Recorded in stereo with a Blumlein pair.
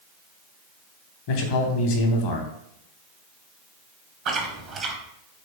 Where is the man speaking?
45° left, 0.8 m.